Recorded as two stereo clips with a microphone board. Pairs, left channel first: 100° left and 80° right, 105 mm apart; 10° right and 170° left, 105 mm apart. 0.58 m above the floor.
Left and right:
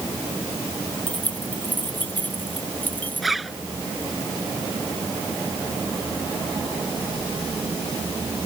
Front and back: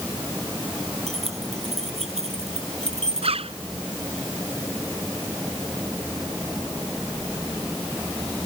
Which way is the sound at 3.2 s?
170° right.